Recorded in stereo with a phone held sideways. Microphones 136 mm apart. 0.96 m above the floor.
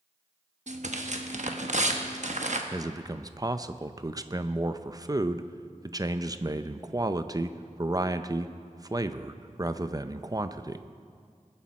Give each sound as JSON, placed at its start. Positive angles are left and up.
{"t": 0.7, "sound": "tearing paper", "side_deg": -60, "distance_m": 1.0}
{"t": 2.7, "sound": "a man speaking", "side_deg": -30, "distance_m": 0.5}